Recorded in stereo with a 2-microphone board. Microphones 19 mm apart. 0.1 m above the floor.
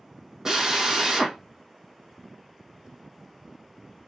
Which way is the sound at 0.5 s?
30° right (ahead or behind).